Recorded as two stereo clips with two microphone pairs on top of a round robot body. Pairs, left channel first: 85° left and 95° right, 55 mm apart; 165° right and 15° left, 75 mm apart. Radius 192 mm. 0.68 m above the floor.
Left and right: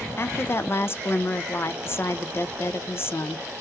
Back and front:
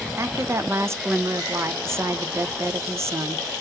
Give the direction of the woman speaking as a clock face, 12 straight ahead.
10 o'clock.